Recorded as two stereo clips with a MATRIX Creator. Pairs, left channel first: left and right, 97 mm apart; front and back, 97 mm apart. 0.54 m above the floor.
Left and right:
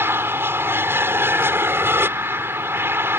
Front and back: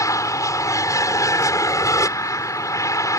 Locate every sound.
0.0 s an aircraft: 35° right